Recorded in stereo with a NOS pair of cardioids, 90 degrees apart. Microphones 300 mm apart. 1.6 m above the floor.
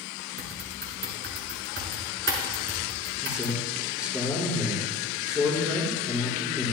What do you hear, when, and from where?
0.4 s typing on a keyboard: 40° right, 4.5 m
3.2 s a man speaking: 5° right, 5 m